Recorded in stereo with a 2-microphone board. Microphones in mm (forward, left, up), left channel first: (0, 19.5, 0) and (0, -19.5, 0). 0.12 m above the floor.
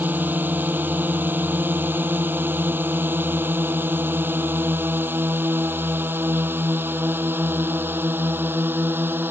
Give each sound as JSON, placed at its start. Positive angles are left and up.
{"t": 0.0, "sound": "a drone", "side_deg": -55}